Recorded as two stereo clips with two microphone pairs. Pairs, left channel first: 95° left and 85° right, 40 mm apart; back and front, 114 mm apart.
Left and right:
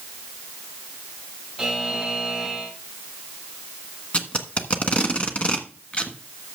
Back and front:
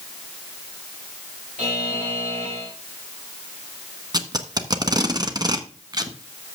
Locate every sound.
1.6 s a buzzer: 5° left, 6 m
4.1 s tape being pulled: 45° left, 1.4 m